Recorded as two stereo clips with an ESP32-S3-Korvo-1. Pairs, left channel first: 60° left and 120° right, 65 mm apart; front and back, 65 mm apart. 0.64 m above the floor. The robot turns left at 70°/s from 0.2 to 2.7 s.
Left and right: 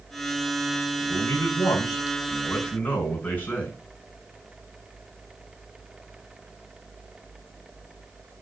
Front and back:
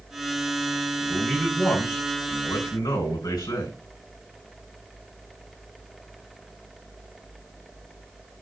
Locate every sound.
1.0 s a man speaking: 115° left, 5 m; by 3.8 s 5° right, 5 m